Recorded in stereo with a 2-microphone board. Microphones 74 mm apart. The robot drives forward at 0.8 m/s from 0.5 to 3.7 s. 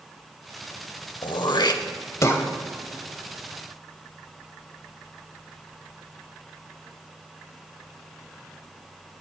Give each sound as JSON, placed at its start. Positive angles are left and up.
{"t": 1.2, "sound": "throat clearing", "side_deg": 75, "distance_m": 0.7}